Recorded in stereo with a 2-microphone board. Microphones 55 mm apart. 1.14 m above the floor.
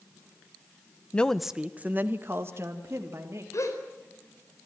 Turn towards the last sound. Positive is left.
turn(degrees=65)  # may be behind; listen again after turning